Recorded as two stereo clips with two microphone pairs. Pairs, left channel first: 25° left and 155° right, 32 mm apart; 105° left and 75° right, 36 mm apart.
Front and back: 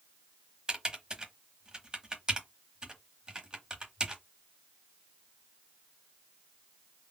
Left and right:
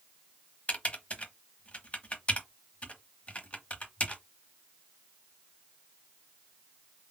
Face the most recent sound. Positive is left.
turn(degrees=145)